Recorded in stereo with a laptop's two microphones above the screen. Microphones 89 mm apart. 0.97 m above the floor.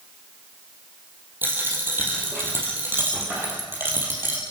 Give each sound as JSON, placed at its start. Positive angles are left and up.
{"t": 1.4, "sound": "a dropped coin", "side_deg": -25, "distance_m": 3.5}